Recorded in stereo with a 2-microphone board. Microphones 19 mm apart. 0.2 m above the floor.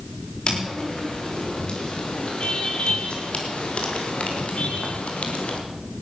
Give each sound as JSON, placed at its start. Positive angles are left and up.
{"t": 0.5, "sound": "footsteps", "side_deg": 50, "distance_m": 6.0}